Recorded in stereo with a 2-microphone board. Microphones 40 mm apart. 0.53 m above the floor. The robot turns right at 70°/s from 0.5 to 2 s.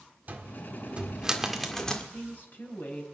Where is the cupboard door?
45° right (ahead or behind), 1.6 m; by 2.0 s 20° left (ahead or behind), 1.6 m.